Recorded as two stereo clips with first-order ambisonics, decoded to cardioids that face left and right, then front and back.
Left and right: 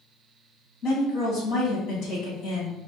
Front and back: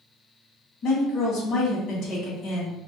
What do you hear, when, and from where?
0.8 s a woman speaking: 50° left, 1.8 m